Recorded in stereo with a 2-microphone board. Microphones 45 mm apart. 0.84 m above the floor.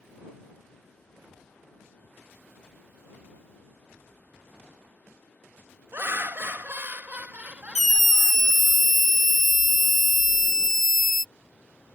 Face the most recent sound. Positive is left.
turn(degrees=5)  # may be behind; listen again after turning